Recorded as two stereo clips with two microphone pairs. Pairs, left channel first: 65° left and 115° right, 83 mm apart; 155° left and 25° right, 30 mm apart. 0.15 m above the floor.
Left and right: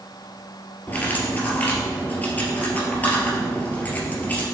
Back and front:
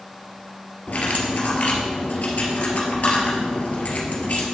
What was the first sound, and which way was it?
Cutlery clinking, 130° left.